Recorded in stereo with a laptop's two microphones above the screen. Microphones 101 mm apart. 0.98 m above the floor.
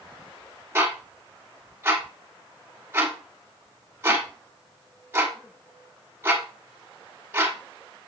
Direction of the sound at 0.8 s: 25° right (ahead or behind).